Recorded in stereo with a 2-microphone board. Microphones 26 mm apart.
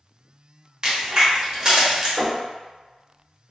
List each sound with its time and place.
0.8 s a crack: 30° right (ahead or behind), 1.0 m
2.2 s knocking: 35° left (ahead or behind), 1.1 m